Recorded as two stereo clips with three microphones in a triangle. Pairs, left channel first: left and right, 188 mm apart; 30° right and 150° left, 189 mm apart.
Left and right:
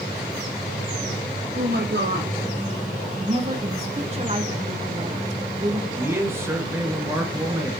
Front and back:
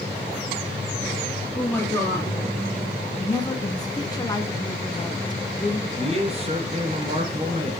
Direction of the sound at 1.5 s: 105° right.